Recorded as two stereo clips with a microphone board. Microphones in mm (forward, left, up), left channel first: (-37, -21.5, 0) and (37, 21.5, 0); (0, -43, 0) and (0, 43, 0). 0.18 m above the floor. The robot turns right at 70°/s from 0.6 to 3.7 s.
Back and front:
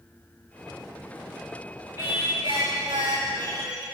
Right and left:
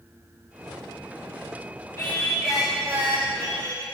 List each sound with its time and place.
2.0 s singing: 25° right, 7.5 m; by 3.8 s 95° left, 7.5 m